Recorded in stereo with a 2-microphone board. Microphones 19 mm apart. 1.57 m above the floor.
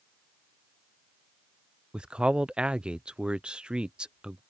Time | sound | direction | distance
1.9 | a man speaking | 85° right | ?